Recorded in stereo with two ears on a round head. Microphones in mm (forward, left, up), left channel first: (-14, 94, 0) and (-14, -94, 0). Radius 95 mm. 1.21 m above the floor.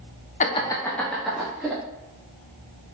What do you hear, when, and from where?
0.4 s laughter: 35° left (ahead or behind), 0.7 m; by 1.8 s 5° right (ahead or behind), 2 m